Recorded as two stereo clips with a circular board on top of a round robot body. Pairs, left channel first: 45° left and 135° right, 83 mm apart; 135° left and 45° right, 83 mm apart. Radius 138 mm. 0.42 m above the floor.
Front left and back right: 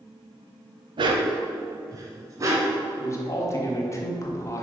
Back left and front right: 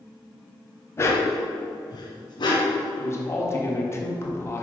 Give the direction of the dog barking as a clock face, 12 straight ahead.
5 o'clock.